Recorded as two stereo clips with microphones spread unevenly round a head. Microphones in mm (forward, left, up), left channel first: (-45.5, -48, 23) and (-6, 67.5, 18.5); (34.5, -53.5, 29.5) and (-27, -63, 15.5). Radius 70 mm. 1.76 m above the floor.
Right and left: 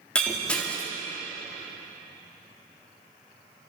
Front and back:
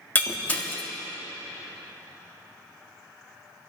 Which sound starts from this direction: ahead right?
Breaking glass, at 0.1 s.